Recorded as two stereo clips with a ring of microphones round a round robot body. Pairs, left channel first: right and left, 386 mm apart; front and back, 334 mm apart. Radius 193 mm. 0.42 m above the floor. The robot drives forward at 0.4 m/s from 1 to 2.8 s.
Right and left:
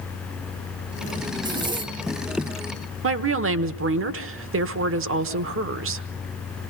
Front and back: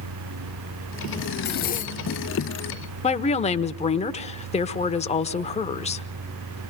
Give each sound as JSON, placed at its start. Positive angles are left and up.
{"t": 1.4, "sound": "a zipper", "azimuth_deg": 20, "distance_m": 1.1}
{"t": 3.0, "sound": "a woman speaking", "azimuth_deg": 60, "distance_m": 1.1}